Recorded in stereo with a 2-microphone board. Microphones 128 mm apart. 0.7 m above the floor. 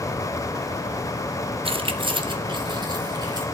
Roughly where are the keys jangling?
Right.